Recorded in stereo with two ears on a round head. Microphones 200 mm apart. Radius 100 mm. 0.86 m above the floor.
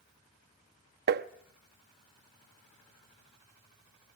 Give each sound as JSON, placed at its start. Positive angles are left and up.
{"t": 1.1, "sound": "tapping", "side_deg": -45, "distance_m": 0.8}